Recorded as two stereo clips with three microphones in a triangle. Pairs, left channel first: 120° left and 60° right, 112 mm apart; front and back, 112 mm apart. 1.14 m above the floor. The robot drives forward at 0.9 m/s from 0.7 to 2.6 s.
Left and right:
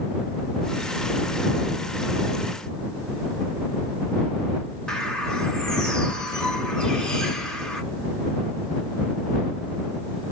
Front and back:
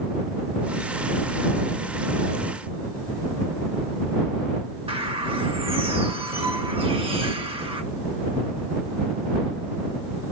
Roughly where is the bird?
Behind right.